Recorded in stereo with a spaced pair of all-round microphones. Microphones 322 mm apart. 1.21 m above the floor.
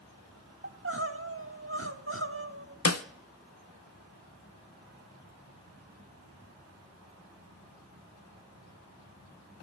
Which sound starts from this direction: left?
A snare drum, at 2.9 s.